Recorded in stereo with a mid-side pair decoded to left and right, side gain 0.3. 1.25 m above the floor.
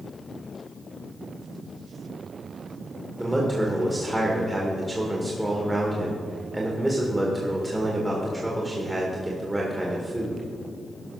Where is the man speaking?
20° right, 1.9 m.